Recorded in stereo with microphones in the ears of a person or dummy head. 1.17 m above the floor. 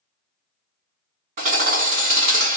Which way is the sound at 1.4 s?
45° right (ahead or behind).